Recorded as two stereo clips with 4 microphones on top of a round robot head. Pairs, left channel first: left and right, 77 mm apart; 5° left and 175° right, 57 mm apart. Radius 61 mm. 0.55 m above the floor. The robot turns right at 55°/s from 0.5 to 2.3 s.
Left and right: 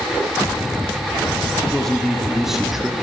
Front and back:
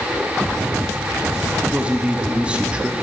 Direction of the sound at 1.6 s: 155° left.